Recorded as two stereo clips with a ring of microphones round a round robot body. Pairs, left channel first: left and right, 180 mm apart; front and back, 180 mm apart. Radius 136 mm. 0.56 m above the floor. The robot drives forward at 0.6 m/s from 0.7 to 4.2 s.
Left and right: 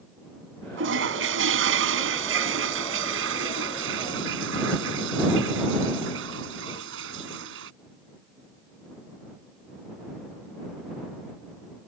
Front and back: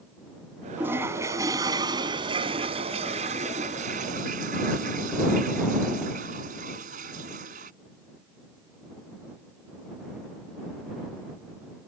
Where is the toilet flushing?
95° right; by 7.7 s 120° right.